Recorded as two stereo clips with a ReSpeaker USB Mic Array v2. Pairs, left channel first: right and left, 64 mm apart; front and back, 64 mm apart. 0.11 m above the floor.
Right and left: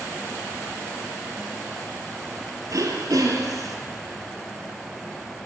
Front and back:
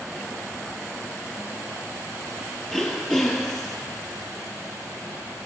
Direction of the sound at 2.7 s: 85° left.